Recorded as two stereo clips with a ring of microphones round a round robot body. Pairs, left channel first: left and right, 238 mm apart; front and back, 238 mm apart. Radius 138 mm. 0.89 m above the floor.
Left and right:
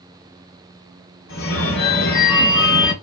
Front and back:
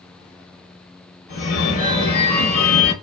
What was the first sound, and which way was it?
A phone ringing, 45° left.